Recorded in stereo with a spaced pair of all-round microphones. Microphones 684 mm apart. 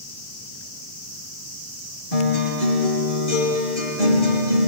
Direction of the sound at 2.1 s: 80° left.